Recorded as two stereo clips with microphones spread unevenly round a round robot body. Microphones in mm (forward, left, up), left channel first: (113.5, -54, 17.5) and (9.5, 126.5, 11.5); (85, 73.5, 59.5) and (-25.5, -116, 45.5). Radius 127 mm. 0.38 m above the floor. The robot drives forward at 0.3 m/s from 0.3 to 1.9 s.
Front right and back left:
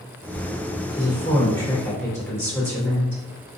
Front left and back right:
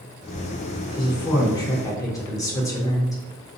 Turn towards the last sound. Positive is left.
turn(degrees=0)